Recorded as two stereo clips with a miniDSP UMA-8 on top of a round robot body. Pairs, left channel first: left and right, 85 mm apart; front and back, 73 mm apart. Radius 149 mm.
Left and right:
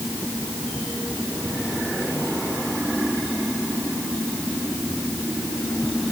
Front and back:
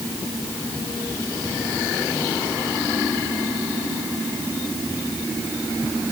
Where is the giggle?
No giggle in this recording.